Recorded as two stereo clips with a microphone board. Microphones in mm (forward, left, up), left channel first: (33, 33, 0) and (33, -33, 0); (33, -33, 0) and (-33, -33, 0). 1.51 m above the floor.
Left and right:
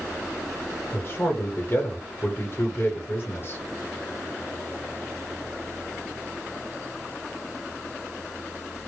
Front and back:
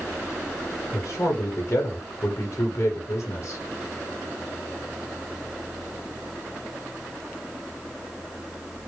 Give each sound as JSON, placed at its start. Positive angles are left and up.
{"t": 0.9, "sound": "a man speaking", "azimuth_deg": 35, "distance_m": 0.9}